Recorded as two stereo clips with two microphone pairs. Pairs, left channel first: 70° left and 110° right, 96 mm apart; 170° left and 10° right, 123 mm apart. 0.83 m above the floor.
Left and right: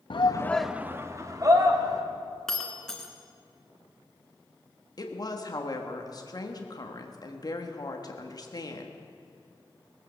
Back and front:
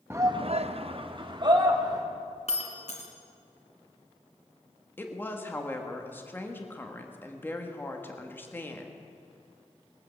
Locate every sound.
0.1 s a shout: 60° left, 0.7 m; by 2.0 s 65° right, 2.5 m
2.5 s breaking glass: 150° left, 1.7 m
5.0 s a woman speaking: 100° left, 1.5 m